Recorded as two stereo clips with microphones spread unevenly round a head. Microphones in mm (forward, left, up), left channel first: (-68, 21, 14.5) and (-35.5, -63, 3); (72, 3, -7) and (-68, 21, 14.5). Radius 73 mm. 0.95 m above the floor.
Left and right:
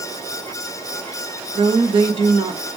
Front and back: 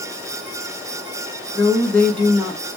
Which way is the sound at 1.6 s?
90° right.